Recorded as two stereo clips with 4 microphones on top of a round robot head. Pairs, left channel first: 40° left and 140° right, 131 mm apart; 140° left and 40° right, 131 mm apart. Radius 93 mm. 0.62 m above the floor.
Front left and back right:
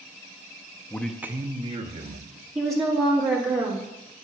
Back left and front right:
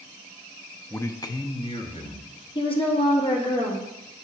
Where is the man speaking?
85° left, 0.5 m; by 2.5 s 170° right, 1.2 m.